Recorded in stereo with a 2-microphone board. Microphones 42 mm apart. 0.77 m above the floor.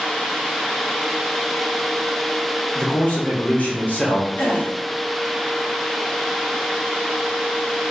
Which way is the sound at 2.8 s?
20° left (ahead or behind).